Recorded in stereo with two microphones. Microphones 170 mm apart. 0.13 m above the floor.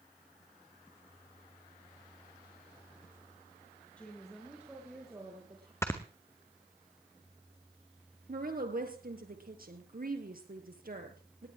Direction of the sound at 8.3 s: 60° right (ahead or behind).